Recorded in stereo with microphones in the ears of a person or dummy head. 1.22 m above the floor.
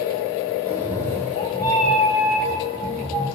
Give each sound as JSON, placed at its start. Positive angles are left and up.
{"t": 0.7, "sound": "a cat meowing", "side_deg": -10, "distance_m": 1.5}